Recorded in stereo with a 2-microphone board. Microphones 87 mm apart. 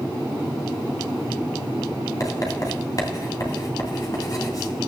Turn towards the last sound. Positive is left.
turn(degrees=45)  # may be behind; listen again after turning